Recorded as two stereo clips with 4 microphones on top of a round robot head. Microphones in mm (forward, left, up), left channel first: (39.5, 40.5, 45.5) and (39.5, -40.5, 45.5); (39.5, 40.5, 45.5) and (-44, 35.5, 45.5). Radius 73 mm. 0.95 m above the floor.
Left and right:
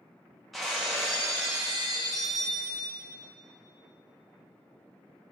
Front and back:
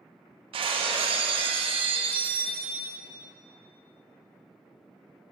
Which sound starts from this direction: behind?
Breaking glass, at 0.5 s.